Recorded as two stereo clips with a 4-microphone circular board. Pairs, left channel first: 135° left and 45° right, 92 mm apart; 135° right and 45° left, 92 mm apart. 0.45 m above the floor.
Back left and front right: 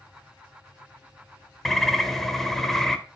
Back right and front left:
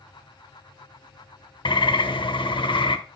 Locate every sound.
1.6 s a bird: 140° right, 1.0 m